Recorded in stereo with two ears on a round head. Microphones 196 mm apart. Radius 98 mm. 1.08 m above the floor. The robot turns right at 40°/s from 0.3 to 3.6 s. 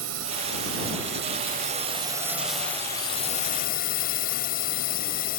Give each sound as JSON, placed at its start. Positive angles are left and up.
{"t": 0.0, "sound": "a drone", "azimuth_deg": -90}